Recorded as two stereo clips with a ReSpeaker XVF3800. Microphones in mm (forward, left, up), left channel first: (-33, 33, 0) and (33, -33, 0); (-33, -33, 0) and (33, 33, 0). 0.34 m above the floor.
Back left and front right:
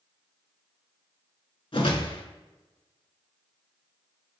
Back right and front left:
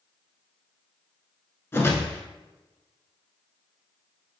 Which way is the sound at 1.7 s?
160° left.